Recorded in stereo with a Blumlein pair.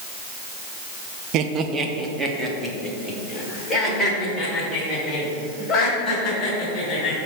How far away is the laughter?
About 0.9 m.